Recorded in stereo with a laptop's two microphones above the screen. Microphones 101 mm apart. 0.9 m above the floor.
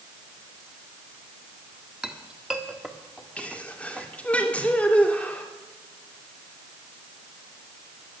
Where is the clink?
5° right (ahead or behind), 1.4 m.